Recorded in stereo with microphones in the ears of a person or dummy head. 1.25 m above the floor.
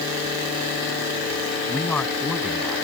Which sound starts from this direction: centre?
A man speaking, at 1.7 s.